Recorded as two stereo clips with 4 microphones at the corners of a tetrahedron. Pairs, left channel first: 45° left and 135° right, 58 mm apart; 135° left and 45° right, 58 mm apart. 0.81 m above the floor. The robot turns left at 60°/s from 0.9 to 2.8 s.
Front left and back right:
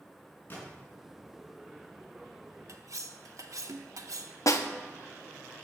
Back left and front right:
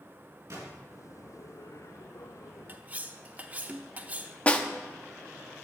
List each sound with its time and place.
0.5 s a gunshot: 10° right, 4.5 m
2.7 s cutlery clinking: 100° right, 0.7 m; by 4.4 s 105° right, 0.7 m
4.5 s a snare drum: 70° left, 0.8 m